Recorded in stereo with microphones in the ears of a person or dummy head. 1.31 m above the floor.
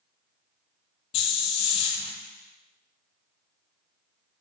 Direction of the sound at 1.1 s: 35° left (ahead or behind).